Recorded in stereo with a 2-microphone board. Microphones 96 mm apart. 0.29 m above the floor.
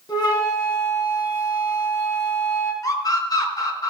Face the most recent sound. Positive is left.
turn(degrees=40)  # may be behind; listen again after turning